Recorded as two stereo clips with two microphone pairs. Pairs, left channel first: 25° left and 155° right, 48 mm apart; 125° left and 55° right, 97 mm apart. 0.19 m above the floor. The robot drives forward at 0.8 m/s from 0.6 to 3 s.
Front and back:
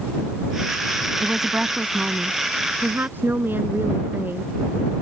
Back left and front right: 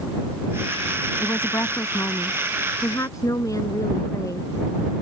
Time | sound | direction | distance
1.2 | a woman speaking | 135° left | ?